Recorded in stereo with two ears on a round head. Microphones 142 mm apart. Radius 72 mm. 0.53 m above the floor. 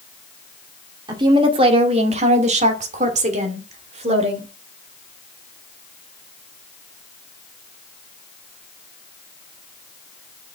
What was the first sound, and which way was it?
A woman speaking, 25° right (ahead or behind).